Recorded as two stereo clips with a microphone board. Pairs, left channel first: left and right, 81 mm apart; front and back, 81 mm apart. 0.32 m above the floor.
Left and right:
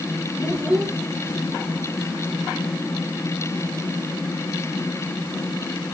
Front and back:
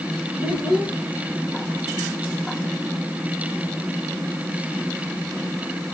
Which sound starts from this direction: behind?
A child speaking, at 0.4 s.